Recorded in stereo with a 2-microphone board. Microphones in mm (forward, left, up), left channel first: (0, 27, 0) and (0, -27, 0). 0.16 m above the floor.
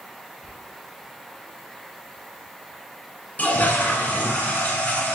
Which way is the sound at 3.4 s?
25° left (ahead or behind).